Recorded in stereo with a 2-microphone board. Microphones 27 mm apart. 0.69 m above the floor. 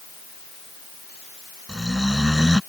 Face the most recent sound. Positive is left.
turn(degrees=-25)  # may be behind; listen again after turning